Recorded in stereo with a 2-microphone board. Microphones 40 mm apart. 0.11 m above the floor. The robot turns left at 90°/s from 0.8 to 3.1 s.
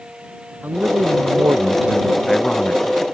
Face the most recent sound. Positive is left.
turn(degrees=105)